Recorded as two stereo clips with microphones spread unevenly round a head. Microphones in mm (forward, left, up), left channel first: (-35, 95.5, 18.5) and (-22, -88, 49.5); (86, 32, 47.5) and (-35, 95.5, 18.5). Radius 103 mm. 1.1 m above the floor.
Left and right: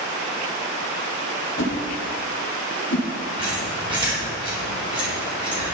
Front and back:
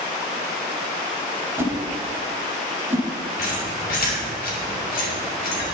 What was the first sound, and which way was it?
A whoosh, 75° left.